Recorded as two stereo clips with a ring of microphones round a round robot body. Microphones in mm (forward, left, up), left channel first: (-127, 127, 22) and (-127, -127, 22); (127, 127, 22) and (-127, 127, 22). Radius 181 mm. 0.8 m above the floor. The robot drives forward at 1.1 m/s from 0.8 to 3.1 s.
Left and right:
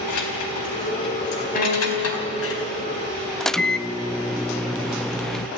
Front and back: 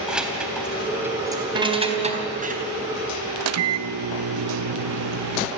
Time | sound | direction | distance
0.1 | keys jangling | 95° left | 3.5 m
1.6 | a piano | 145° left | 4 m
3.4 | a microwave | straight behind | 0.7 m